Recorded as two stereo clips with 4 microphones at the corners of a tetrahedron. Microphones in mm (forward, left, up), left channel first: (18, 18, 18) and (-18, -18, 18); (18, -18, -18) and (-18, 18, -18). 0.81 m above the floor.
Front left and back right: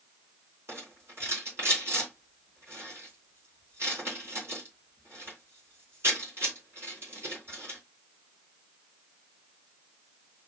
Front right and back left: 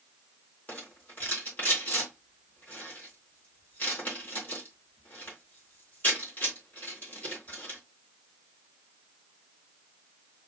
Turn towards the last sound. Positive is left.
turn(degrees=-100)